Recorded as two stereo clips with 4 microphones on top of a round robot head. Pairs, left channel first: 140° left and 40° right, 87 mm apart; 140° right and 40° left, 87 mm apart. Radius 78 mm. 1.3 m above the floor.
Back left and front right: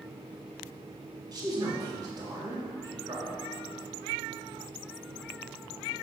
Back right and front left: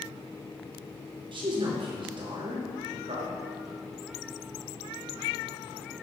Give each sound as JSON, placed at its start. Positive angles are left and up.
{"t": 1.3, "sound": "a man speaking", "azimuth_deg": 5, "distance_m": 3.0}